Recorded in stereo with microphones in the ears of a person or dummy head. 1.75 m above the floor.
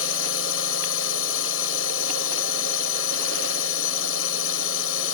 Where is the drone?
80° left.